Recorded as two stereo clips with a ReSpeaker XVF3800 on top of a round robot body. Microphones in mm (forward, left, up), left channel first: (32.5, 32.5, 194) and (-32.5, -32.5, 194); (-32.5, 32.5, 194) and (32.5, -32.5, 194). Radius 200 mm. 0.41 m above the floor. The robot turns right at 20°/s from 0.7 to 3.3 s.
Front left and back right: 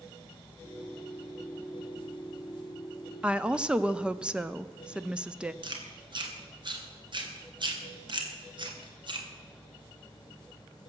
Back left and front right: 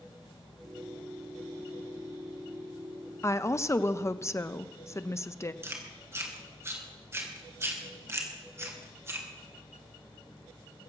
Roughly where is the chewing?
Right.